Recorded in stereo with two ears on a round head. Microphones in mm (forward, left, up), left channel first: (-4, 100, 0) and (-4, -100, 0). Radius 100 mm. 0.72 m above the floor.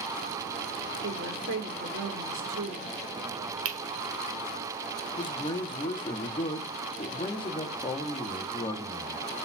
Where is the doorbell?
No doorbell in this recording.